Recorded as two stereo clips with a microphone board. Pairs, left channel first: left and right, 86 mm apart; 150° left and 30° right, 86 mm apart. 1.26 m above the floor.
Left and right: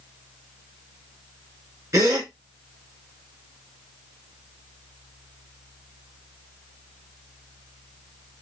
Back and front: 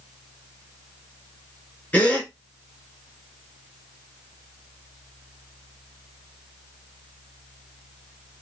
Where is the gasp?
145° right, 1.7 m.